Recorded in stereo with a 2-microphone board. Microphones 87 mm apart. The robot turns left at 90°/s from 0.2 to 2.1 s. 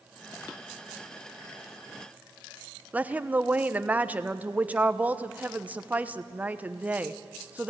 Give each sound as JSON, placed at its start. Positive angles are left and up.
{"t": 2.9, "sound": "a woman speaking", "side_deg": -15, "distance_m": 0.9}